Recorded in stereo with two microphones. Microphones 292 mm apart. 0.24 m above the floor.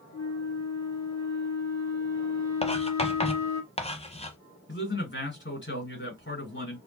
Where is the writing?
20° left (ahead or behind), 0.8 m.